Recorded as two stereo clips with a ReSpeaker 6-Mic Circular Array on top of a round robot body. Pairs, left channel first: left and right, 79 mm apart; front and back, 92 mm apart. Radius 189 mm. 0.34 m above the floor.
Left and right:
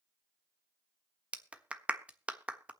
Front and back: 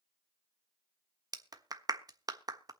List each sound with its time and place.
1.3 s a clap: 155° right, 1.4 m